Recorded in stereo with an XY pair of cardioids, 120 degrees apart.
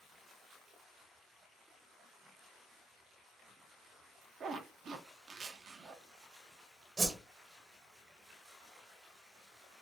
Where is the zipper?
45° right, 0.7 m.